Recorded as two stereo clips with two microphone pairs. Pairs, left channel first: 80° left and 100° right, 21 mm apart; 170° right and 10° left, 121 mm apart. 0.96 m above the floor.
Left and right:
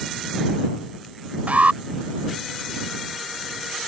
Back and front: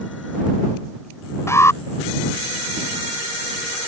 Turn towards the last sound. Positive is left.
turn(degrees=-100)